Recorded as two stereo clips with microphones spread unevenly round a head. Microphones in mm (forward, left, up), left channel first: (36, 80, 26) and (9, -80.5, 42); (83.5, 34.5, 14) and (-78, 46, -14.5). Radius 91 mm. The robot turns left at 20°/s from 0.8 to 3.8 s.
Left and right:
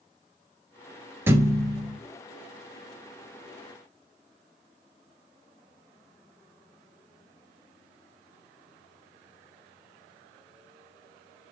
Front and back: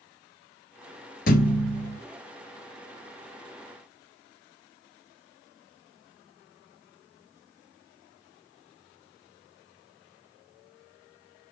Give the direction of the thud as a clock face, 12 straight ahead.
1 o'clock.